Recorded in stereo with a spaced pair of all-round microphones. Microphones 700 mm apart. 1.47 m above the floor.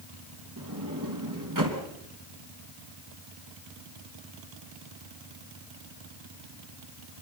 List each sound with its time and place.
0.6 s a sliding door: 25° right (ahead or behind), 3 m